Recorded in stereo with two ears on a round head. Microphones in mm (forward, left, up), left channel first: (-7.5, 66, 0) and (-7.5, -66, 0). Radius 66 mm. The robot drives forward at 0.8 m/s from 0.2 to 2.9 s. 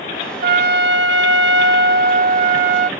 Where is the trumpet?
65° right (ahead or behind); by 2.9 s 50° right (ahead or behind).